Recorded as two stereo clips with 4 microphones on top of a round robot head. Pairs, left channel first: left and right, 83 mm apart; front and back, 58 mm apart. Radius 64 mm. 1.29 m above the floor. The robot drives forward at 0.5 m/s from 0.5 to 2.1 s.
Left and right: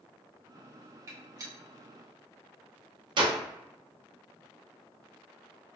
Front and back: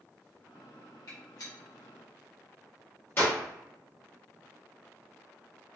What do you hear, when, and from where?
1.1 s a gunshot: 35° right, 1.1 m; by 3.4 s 60° right, 0.7 m